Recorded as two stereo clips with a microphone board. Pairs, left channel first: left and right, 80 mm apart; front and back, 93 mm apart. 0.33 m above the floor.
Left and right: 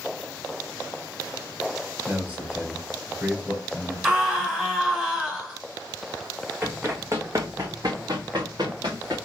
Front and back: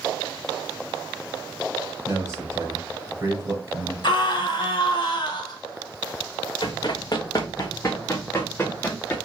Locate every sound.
2.0 s a man speaking: 150° right, 1.8 m
4.0 s a scream: 5° right, 2 m
6.6 s running footsteps: 30° right, 1.7 m; by 9.2 s 75° right, 2.5 m